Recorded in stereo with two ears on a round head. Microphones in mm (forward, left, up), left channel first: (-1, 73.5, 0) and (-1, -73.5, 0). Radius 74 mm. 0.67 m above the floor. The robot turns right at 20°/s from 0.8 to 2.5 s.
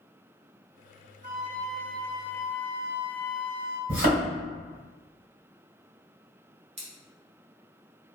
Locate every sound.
1.2 s a flute: 45° right (ahead or behind), 0.7 m; by 3.8 s 65° right (ahead or behind), 0.7 m
3.9 s a thud: 65° right (ahead or behind), 1.5 m
6.8 s scissors: 40° right (ahead or behind), 0.9 m